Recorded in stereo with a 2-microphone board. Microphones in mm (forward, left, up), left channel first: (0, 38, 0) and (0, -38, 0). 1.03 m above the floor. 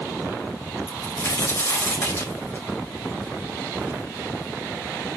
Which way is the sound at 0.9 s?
40° left (ahead or behind).